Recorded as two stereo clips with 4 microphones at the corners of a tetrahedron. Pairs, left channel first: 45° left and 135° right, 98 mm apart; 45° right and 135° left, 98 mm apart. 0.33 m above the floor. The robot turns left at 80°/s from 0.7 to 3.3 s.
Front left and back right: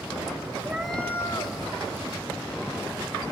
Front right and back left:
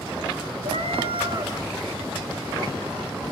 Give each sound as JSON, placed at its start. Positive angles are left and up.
{"t": 0.6, "sound": "a cat meowing", "azimuth_deg": 150, "distance_m": 1.6}